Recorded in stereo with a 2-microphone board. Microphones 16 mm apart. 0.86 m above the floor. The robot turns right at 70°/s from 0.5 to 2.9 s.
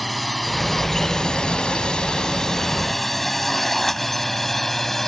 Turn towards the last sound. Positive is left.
turn(degrees=15)  # may be behind; listen again after turning